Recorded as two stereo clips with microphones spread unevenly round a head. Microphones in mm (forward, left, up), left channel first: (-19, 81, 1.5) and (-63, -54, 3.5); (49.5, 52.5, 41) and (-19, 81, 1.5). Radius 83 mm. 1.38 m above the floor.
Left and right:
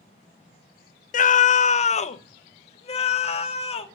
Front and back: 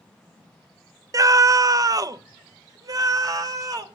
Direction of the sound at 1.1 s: 105° left.